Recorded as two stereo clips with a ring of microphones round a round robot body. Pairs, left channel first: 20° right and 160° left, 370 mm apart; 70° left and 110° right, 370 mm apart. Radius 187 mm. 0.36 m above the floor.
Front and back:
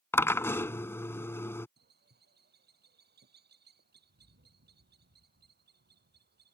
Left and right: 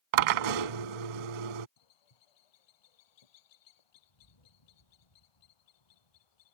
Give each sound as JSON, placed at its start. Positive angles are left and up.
{"t": 0.1, "sound": "a drill", "azimuth_deg": -105}
{"t": 1.8, "sound": "a bird", "azimuth_deg": 90}